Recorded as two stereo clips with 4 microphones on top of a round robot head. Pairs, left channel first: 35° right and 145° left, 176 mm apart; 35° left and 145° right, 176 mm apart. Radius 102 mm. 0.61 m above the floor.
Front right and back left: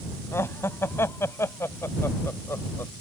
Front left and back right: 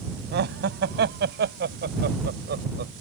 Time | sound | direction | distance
0.3 | laughter | 115° right | ?